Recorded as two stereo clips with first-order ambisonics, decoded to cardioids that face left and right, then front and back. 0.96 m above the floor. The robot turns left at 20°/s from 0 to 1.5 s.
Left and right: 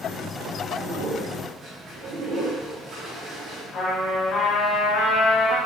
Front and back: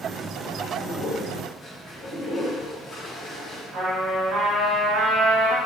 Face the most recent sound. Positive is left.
turn(degrees=130)